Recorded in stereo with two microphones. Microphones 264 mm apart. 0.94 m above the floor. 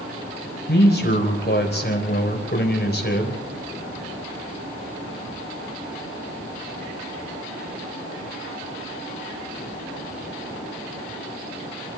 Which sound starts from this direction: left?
A man speaking, at 0.7 s.